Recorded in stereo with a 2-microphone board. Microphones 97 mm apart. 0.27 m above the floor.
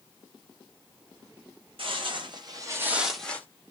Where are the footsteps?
70° right (ahead or behind), 1.1 m; by 3.5 s 20° left (ahead or behind), 0.8 m.